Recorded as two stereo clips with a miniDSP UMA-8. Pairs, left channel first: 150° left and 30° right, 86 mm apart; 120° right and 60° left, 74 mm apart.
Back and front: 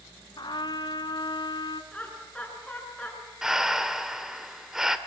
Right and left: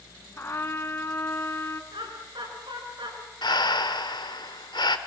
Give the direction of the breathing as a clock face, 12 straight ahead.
4 o'clock.